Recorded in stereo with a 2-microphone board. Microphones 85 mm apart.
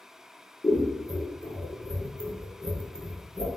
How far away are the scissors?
About 0.7 m.